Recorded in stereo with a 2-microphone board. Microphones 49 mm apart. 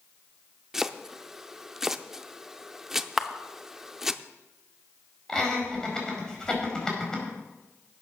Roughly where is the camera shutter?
Centre.